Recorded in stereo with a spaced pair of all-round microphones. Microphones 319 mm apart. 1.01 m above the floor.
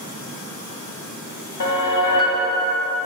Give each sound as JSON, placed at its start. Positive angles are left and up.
{"t": 1.6, "sound": "a whoosh", "side_deg": 70, "distance_m": 0.9}